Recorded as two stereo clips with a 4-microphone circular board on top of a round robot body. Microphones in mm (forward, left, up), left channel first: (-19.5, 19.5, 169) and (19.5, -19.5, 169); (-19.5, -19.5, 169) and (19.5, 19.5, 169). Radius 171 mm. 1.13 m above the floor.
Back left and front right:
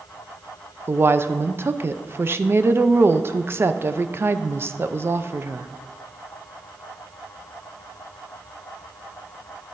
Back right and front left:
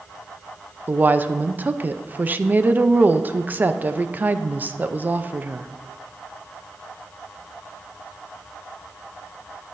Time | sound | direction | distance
0.9 | a woman speaking | 10° right | 0.6 m